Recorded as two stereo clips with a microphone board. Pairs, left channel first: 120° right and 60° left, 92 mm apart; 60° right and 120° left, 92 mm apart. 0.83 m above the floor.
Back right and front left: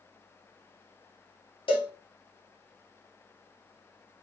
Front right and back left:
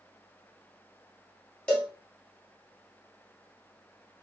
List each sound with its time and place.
1.7 s a cowbell: 140° right, 1.7 m